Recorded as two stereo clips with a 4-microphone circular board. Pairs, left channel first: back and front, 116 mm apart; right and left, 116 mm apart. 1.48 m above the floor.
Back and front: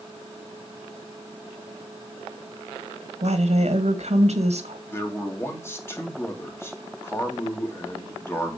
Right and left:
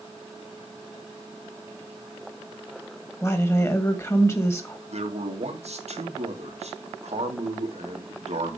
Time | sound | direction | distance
3.2 | a woman speaking | 25° right | 2 m
4.9 | a man speaking | 110° left | 3 m